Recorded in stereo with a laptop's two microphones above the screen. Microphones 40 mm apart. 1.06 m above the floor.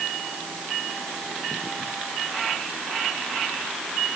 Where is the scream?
No scream in this recording.